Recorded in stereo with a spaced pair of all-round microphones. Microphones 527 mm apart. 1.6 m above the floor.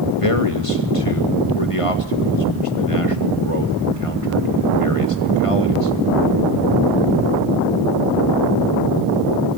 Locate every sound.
0.2 s a man speaking: 80° left, 2 m